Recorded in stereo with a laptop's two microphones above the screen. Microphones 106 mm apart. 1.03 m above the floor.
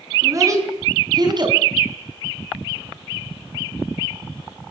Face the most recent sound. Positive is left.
turn(degrees=-45)  # may be behind; listen again after turning